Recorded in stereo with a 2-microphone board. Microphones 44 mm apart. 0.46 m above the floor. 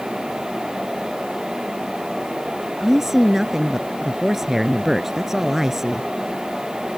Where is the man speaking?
10° right (ahead or behind).